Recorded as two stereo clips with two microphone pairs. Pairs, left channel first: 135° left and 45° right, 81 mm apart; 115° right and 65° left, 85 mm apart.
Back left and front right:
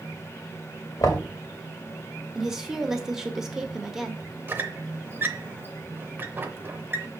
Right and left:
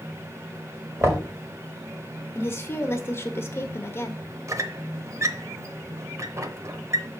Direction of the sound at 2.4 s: 125° right.